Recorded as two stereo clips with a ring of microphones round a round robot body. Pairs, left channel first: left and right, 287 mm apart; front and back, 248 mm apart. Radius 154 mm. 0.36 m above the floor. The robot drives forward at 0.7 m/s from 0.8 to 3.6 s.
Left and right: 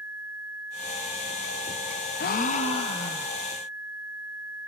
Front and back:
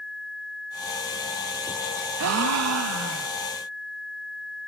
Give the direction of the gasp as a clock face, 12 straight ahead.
7 o'clock.